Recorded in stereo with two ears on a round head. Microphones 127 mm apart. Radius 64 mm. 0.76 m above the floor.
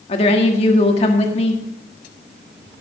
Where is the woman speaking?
45° left (ahead or behind), 1.8 m.